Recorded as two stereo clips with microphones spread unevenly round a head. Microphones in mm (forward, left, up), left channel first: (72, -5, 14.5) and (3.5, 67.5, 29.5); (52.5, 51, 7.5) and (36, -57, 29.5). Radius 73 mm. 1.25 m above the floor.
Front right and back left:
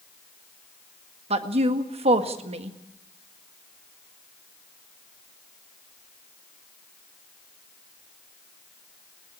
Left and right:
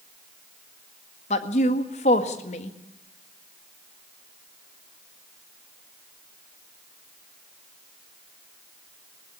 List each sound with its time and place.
1.3 s a woman speaking: 115° left, 1.8 m